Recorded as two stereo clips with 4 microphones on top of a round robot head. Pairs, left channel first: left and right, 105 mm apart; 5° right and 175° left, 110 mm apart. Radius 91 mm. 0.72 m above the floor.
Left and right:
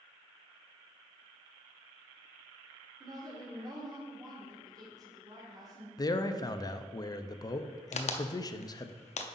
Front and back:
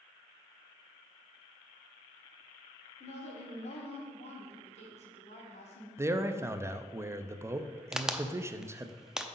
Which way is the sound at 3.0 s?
30° right.